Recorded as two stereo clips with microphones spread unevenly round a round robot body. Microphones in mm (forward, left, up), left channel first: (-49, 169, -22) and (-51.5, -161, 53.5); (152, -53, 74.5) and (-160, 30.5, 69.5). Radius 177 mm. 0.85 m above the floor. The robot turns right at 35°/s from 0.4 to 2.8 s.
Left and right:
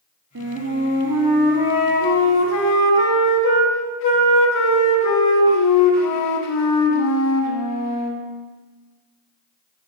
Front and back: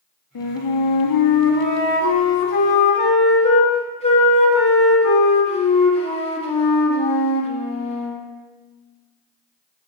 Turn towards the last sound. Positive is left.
turn(degrees=55)